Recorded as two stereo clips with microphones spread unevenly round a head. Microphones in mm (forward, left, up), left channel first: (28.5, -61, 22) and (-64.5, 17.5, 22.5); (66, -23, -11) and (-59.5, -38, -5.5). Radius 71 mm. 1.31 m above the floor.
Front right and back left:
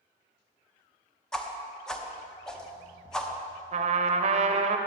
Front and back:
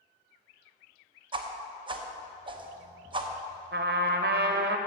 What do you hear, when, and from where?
1.3 s a whoosh: 125° right, 0.9 m
3.7 s a trumpet: 170° left, 0.7 m